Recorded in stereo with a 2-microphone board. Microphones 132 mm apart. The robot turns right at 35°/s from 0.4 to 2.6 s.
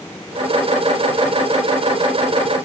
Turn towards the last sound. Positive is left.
No sound to turn to.